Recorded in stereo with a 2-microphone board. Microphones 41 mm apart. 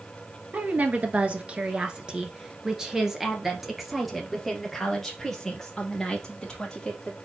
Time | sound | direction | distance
0.5 | a woman speaking | 45° right (ahead or behind) | 1.8 m